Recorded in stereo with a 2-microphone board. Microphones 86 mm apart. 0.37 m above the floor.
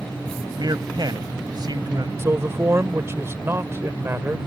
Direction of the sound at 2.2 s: 30° right (ahead or behind).